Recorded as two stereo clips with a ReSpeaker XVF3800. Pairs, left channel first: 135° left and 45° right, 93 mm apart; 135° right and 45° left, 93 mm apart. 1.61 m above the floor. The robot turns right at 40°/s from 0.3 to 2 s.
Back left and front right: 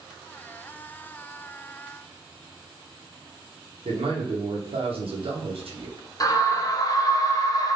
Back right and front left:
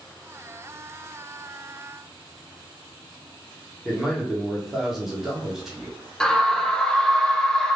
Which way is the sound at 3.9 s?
40° right.